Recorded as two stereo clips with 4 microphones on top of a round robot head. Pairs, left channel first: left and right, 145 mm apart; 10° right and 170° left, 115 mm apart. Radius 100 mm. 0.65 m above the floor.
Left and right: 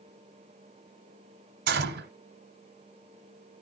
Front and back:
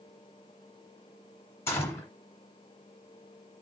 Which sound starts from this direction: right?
A gunshot, at 1.7 s.